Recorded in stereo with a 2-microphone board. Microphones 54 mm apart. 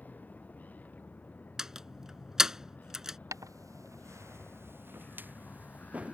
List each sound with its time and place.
0.0 s a vehicle: 30° left (ahead or behind)
1.6 s a door slam: 10° right (ahead or behind)
3.3 s footsteps: 85° right; by 6.2 s 25° right (ahead or behind)